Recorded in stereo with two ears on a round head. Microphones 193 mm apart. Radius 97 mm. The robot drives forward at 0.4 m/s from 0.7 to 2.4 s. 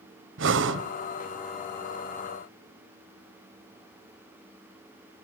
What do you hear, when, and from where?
0.4 s breathing: 60° right (ahead or behind), 1.2 m